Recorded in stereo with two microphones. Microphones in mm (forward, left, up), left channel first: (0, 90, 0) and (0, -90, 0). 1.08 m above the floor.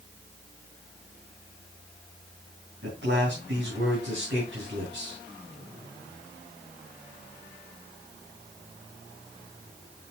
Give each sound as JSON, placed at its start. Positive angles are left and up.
{"t": 2.8, "sound": "a man speaking", "side_deg": -75, "distance_m": 6.5}